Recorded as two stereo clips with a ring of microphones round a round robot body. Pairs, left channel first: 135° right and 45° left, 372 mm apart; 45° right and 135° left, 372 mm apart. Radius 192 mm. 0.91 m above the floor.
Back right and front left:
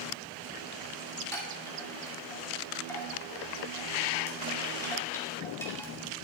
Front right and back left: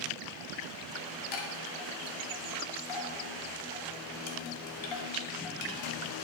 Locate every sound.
1.3 s a chime: 50° right, 2.5 m